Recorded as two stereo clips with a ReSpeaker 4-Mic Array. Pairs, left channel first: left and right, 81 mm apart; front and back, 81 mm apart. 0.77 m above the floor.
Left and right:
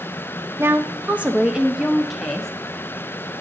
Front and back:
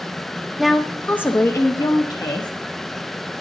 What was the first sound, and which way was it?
A woman speaking, 95° right.